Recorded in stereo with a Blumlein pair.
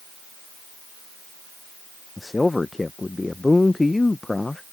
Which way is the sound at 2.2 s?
10° left.